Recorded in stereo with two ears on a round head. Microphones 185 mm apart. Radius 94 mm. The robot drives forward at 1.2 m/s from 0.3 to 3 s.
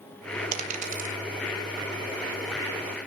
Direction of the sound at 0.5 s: 35° right (ahead or behind).